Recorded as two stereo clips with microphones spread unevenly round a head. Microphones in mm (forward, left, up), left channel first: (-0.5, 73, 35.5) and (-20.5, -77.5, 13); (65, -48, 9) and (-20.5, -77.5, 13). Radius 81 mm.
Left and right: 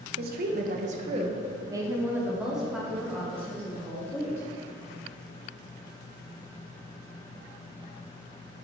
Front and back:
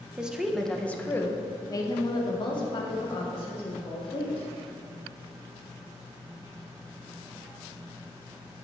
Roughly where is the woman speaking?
Right.